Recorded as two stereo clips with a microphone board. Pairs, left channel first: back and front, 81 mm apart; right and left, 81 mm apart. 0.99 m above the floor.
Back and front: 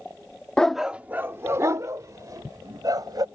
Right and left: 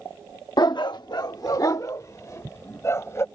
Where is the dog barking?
100° right; by 3.2 s 35° right.